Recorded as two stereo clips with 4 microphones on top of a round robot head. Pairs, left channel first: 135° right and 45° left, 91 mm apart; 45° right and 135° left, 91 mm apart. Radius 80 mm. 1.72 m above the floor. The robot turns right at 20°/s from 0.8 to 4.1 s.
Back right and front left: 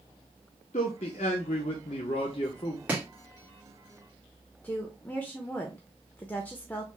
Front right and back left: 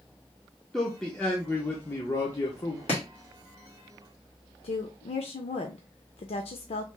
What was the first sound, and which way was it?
A man speaking, 135° right.